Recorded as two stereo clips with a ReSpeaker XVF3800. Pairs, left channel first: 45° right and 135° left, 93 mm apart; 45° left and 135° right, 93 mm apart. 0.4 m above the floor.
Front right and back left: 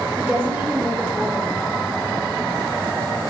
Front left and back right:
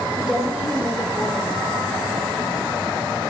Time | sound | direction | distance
0.2 | a woman speaking | 160° left | 1.2 m